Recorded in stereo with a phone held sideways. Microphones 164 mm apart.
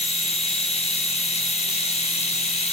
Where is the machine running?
40° left (ahead or behind), 1.0 m.